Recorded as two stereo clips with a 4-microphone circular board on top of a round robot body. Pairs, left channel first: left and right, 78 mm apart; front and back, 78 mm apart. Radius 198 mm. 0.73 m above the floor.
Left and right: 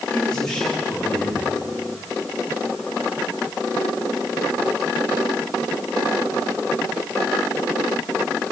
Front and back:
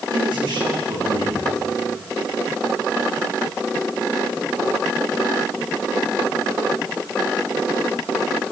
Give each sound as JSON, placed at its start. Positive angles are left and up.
{"t": 0.1, "sound": "a man speaking", "azimuth_deg": 170, "distance_m": 7.0}